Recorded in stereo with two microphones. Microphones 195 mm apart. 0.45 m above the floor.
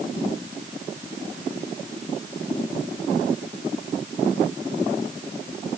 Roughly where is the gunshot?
No gunshot in this recording.